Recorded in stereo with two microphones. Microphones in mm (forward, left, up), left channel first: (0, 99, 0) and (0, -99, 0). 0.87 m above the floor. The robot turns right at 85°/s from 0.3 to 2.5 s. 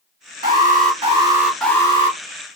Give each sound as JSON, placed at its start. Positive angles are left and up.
{"t": 0.4, "sound": "an alarm", "azimuth_deg": -95, "distance_m": 1.7}